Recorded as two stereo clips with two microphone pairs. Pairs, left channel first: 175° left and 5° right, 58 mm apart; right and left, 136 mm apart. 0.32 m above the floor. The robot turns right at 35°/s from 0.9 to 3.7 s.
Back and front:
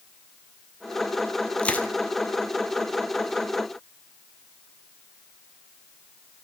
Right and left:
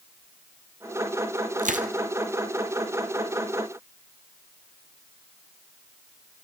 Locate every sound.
1.6 s crushing: 100° left, 1.7 m; by 1.9 s 110° left, 1.7 m